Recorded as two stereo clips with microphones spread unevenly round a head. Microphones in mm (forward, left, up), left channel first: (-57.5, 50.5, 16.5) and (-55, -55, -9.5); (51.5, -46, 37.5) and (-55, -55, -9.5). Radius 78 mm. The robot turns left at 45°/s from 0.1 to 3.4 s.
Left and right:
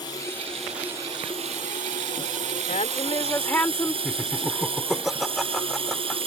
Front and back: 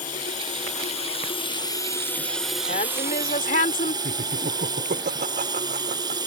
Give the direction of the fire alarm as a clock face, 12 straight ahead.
I don't hear a fire alarm.